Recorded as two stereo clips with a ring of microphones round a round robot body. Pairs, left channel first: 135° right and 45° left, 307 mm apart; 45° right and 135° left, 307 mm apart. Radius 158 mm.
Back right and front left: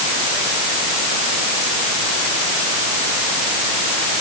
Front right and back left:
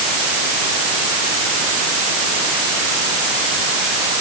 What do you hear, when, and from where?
Only background noise.